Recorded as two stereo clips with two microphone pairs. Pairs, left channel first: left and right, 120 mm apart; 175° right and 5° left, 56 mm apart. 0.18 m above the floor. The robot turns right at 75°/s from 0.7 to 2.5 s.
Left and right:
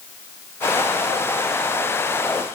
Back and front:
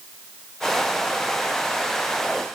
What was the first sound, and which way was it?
Only background noise.